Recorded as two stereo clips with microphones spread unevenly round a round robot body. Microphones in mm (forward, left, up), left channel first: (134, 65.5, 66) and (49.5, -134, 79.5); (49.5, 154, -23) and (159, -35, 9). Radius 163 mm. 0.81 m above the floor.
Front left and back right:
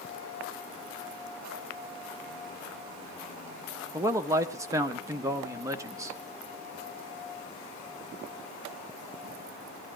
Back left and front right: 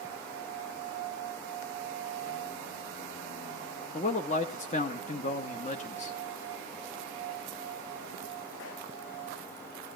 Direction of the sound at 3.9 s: 170° left.